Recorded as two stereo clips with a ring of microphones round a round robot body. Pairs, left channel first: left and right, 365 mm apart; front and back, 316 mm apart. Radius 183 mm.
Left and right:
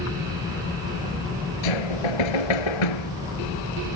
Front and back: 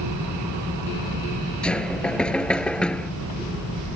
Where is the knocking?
85° left.